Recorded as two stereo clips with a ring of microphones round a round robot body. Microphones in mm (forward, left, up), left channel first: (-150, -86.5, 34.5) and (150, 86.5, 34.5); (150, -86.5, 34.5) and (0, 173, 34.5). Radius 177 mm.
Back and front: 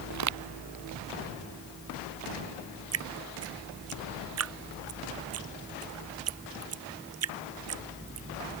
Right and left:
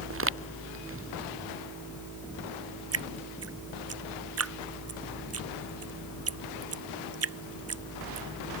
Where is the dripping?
80° left.